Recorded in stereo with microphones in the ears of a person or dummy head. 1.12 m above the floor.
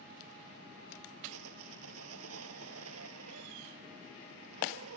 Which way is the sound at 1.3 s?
85° right.